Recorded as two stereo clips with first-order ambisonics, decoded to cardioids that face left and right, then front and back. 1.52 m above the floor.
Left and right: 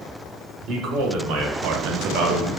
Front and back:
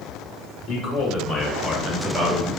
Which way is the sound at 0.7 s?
50° right.